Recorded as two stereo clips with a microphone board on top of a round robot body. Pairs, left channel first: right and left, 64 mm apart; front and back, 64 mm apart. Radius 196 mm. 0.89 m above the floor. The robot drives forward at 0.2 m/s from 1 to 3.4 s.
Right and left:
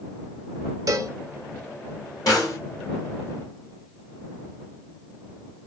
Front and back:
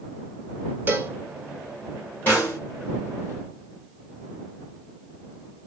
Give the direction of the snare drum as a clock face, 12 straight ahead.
2 o'clock.